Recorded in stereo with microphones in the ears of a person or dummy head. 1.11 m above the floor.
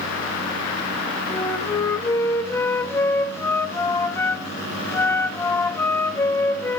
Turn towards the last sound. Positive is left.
turn(degrees=20)  # may be behind; listen again after turning